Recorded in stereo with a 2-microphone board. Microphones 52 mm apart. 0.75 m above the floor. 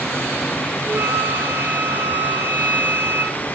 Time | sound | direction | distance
0.8 | a flute | 35° right (ahead or behind) | 9 m